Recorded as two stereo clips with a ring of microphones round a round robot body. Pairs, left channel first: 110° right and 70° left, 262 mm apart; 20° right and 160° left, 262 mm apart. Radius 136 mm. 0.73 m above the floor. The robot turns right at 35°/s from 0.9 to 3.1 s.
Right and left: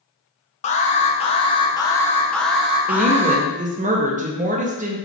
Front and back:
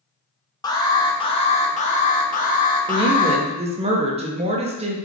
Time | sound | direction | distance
0.6 | an alarm | 85° right | 0.5 m
2.9 | a woman speaking | 100° left | 0.5 m